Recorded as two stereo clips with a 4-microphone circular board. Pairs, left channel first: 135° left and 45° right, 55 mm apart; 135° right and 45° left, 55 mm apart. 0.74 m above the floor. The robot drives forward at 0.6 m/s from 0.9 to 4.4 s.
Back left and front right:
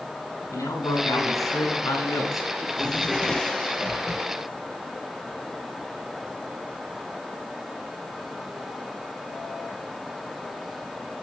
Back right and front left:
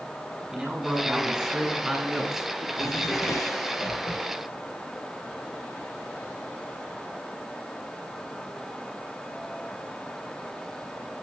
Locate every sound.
0.5 s a man speaking: 125° left, 9 m; by 2.5 s 130° left, 10 m
2.6 s a drawer: 145° right, 1.6 m; by 4.3 s 160° right, 2.5 m